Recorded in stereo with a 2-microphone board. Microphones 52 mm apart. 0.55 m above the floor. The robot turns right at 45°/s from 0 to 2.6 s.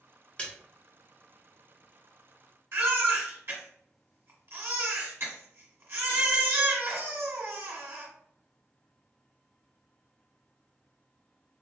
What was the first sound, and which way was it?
A splash, 25° left (ahead or behind).